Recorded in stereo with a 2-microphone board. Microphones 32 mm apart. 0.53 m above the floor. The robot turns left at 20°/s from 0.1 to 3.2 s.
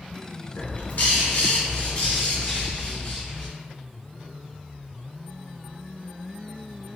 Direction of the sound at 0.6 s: 80° left.